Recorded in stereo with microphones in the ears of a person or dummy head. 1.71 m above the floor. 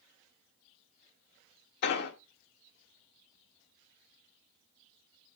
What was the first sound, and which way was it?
An explosion, 50° left (ahead or behind).